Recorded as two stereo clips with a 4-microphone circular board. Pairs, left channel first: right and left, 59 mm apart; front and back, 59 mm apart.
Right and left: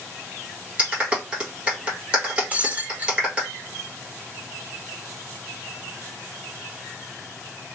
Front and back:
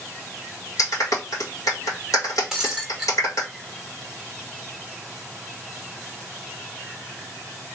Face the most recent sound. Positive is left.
turn(degrees=110)